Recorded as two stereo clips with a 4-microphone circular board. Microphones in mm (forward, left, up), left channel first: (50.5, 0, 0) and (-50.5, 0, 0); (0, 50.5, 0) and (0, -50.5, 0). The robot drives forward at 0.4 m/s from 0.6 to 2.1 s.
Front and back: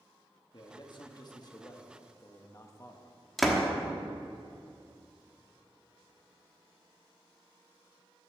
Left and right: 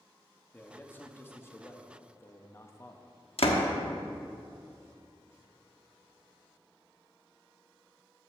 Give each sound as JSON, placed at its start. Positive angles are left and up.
{"t": 0.5, "sound": "a man speaking", "azimuth_deg": 25, "distance_m": 1.4}
{"t": 3.4, "sound": "a door slam", "azimuth_deg": 90, "distance_m": 1.2}